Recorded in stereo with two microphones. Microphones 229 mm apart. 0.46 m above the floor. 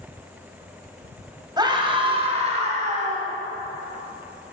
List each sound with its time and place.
1.6 s a scream: 20° right (ahead or behind), 3 m; by 3.3 s 35° right (ahead or behind), 4.5 m